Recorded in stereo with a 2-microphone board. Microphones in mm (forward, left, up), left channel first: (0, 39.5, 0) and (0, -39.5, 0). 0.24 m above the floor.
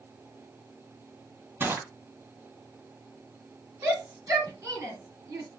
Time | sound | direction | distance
1.6 | crushing | 25° right (ahead or behind) | 1.7 m
3.8 | a shout | 40° right (ahead or behind) | 2.5 m